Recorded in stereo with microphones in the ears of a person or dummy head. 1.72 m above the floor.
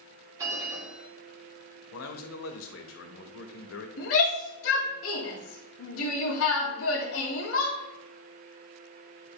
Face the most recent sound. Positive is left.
turn(degrees=80)